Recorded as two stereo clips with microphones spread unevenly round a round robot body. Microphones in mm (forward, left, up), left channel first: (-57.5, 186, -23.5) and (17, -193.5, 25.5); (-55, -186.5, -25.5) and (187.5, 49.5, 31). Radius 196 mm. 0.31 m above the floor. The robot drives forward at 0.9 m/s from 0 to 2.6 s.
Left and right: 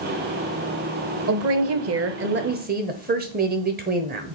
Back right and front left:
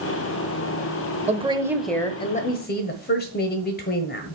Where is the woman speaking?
30° right, 1.2 m; by 4.3 s 145° right, 1.2 m.